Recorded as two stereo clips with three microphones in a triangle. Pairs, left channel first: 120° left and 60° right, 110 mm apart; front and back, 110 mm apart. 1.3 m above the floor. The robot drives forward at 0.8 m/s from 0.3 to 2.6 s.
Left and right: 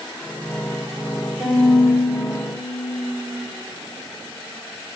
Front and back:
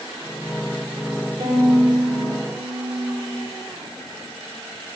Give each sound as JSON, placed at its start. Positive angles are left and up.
{"t": 1.4, "sound": "a violin", "azimuth_deg": -130, "distance_m": 3.5}